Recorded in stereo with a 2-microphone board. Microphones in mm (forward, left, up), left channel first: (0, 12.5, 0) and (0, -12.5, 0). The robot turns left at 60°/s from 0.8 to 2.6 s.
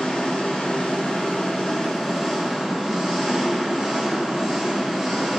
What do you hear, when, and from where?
0.0 s an engine running: 90° left, 1.8 m; by 5.4 s 20° right, 1.8 m